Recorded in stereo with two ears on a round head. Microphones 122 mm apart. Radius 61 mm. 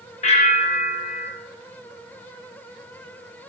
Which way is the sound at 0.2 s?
50° left (ahead or behind).